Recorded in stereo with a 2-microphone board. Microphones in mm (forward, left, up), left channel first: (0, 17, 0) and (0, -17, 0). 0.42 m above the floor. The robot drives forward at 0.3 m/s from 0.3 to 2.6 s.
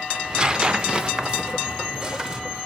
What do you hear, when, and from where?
0.1 s tearing paper: 20° right (ahead or behind), 0.5 m; by 2.4 s 15° right (ahead or behind), 0.8 m